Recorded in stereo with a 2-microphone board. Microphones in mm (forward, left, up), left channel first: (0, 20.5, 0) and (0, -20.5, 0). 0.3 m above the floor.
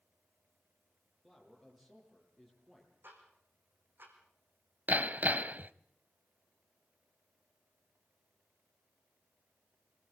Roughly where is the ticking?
Right.